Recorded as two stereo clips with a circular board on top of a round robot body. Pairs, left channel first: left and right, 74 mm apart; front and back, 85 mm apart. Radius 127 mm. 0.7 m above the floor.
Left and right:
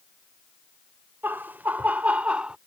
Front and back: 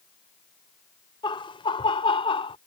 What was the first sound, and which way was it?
Laughter, 25° right.